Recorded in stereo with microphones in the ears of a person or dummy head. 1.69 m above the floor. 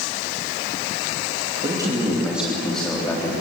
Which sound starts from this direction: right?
A man speaking, at 1.6 s.